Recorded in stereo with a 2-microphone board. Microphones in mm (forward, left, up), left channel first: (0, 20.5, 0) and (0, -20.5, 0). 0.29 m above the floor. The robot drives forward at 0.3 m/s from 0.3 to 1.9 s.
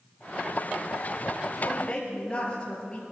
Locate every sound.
1.6 s a woman speaking: 30° left (ahead or behind), 4.5 m